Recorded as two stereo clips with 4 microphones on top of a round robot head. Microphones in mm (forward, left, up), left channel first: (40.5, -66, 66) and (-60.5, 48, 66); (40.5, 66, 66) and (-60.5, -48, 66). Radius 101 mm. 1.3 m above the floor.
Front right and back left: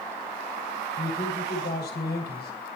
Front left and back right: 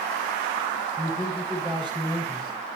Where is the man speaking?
70° right, 6.5 m.